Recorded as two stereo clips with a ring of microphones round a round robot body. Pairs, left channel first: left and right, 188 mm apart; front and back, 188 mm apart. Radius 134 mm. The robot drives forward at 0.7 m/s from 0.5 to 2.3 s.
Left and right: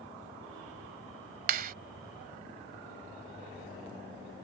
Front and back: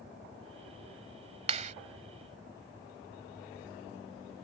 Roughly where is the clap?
Behind right.